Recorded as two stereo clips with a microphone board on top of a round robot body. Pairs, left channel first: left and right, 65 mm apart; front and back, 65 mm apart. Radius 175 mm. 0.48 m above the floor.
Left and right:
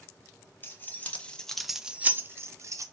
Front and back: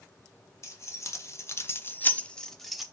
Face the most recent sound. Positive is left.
turn(degrees=-90)